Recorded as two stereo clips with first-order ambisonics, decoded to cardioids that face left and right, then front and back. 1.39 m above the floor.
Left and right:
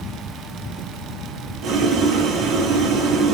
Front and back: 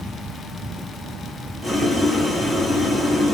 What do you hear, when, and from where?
1.6 s boiling: 80° right, 0.5 m